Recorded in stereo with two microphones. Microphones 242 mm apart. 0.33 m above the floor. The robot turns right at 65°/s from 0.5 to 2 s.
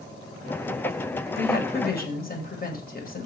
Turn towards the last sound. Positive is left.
turn(degrees=115)